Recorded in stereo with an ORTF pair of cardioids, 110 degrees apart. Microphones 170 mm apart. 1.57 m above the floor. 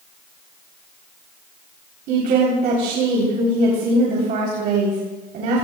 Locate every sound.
2.1 s a woman speaking: 70° right, 3.5 m